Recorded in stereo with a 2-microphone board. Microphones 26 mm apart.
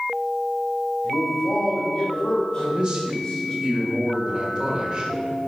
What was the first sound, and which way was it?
A man speaking, 40° left (ahead or behind).